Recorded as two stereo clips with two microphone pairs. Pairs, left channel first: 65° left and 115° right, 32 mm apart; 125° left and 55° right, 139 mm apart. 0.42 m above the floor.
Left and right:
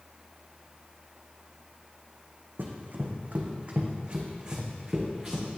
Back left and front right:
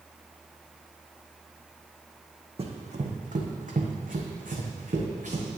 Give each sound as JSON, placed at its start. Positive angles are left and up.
{"t": 2.6, "sound": "running footsteps", "azimuth_deg": -95, "distance_m": 1.3}